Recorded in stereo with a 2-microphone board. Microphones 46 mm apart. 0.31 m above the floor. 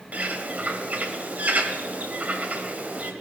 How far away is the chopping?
I don't hear chopping.